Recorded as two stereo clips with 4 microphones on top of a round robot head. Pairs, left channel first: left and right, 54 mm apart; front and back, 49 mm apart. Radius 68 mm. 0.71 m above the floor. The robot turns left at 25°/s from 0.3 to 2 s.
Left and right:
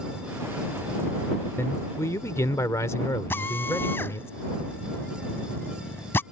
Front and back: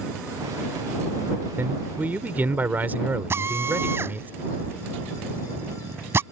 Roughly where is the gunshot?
I don't hear a gunshot.